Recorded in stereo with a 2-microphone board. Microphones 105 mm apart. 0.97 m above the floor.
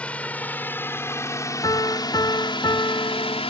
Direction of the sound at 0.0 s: 10° left (ahead or behind).